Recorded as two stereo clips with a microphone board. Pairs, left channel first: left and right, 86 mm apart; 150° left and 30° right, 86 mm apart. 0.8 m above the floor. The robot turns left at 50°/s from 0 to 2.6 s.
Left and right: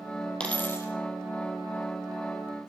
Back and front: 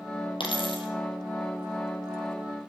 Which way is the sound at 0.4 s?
170° left.